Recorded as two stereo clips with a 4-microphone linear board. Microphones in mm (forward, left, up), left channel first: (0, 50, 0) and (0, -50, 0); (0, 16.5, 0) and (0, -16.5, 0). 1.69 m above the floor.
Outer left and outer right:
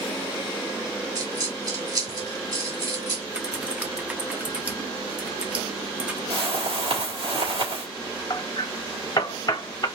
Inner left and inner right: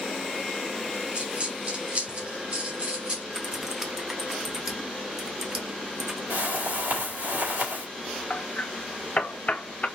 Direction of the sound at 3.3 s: 15° right (ahead or behind).